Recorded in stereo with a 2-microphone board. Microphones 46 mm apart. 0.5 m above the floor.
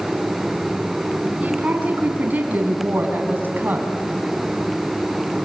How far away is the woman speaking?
About 5.5 m.